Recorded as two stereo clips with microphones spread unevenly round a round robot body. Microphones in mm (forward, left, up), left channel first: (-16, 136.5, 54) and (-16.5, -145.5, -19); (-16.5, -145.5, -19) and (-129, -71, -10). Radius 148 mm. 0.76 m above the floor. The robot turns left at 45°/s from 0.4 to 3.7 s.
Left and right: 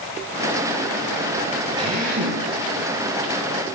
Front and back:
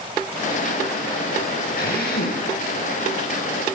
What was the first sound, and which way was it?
A drill, 15° right.